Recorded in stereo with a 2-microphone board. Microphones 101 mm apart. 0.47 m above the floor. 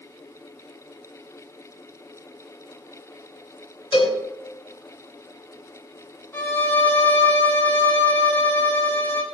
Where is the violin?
20° left (ahead or behind), 6 m.